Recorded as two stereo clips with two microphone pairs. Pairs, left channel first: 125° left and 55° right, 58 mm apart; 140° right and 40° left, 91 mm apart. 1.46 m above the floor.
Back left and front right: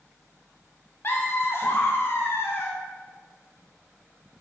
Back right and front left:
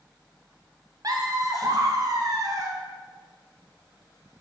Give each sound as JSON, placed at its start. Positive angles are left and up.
{"t": 1.0, "sound": "laughter", "azimuth_deg": 85, "distance_m": 1.1}